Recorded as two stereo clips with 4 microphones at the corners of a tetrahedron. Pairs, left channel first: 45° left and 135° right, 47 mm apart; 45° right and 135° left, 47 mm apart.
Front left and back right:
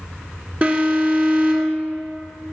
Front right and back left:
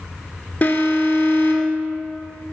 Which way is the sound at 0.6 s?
90° right.